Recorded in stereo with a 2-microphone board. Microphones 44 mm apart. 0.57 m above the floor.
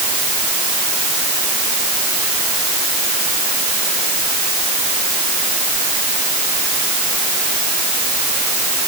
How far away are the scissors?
I don't hear scissors.